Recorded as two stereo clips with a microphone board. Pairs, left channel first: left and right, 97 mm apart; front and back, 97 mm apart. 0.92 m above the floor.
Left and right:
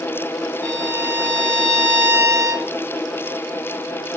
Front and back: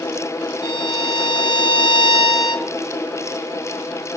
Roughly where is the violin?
Ahead right.